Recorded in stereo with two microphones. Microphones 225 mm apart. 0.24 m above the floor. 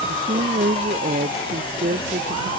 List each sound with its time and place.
0.1 s a woman speaking: 45° right (ahead or behind)